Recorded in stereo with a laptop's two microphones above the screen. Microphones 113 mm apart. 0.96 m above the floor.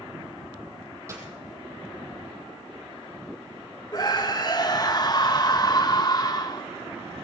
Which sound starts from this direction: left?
A scream, at 3.9 s.